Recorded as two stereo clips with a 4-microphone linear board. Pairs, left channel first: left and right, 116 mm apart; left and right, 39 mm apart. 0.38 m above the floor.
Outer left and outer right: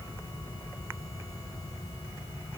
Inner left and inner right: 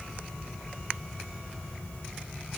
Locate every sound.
Only background noise.